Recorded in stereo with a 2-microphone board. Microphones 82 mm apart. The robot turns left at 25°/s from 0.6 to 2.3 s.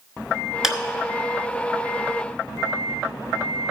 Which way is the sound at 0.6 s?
5° right (ahead or behind).